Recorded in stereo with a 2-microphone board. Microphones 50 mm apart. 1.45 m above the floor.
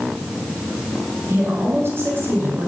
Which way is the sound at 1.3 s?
50° right (ahead or behind).